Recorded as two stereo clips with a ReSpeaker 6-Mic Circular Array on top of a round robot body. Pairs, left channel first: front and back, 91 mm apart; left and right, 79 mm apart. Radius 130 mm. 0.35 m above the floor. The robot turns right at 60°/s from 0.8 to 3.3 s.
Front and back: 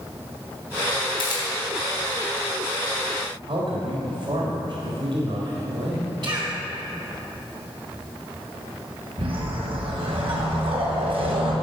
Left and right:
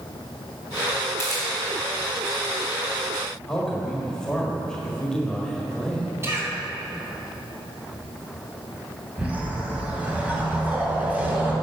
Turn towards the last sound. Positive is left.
turn(degrees=-160)